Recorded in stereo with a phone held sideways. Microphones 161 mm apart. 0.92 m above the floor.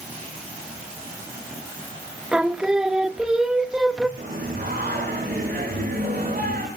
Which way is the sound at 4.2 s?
75° right (ahead or behind).